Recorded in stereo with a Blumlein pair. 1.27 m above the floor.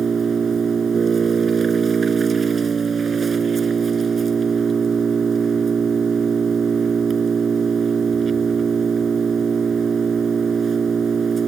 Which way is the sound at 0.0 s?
20° right.